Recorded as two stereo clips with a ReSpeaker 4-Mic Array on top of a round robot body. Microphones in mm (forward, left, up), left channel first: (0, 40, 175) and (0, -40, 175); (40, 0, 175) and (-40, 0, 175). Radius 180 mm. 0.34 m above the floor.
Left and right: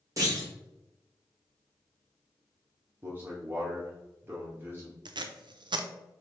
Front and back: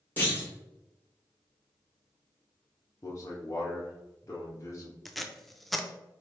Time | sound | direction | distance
0.2 | a clunk | 65° right | 2.0 m
3.0 | a man speaking | 35° right | 1.1 m
5.0 | tape being pulled | 90° right | 0.6 m